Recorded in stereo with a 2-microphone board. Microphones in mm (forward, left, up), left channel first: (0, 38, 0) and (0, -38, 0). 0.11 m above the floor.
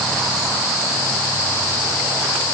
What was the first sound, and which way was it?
Only background noise.